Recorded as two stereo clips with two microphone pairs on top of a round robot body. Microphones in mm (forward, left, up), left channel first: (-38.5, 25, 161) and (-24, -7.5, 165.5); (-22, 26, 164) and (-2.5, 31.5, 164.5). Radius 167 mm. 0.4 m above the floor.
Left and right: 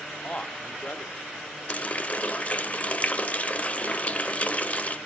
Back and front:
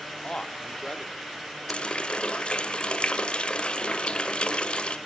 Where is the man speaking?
160° left, 1.4 m; by 1.2 s 155° left, 1.9 m.